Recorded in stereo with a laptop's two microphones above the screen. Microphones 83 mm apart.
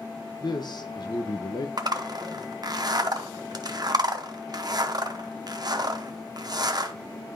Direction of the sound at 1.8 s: 55° right (ahead or behind).